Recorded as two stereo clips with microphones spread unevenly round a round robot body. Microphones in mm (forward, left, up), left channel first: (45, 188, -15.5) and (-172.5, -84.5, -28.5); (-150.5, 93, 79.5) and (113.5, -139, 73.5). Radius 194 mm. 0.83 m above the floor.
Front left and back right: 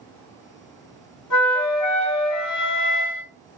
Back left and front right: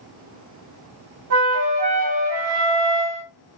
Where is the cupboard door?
I don't hear a cupboard door.